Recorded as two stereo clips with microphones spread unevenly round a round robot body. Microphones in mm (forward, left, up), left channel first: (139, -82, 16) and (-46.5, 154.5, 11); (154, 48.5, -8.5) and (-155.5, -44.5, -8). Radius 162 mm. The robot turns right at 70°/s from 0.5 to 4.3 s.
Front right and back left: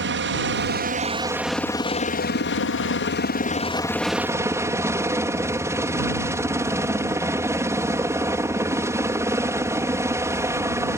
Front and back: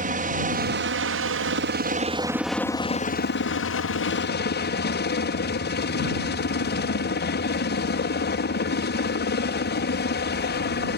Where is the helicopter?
145° left; by 11.0 s 55° left.